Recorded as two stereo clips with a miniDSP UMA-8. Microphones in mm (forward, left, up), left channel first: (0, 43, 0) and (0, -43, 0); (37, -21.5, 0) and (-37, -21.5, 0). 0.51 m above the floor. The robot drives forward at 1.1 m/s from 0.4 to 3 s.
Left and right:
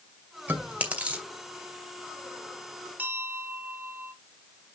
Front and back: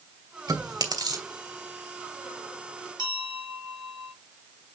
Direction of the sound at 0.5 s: 155° right.